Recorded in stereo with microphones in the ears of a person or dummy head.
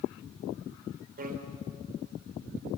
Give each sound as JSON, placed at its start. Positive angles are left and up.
{"t": 1.2, "sound": "a bicycle bell", "side_deg": -40, "distance_m": 3.5}